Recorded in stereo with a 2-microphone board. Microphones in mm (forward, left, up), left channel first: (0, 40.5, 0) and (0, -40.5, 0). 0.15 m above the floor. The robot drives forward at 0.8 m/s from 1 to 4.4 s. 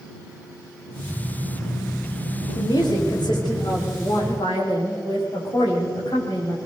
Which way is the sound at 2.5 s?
60° left (ahead or behind).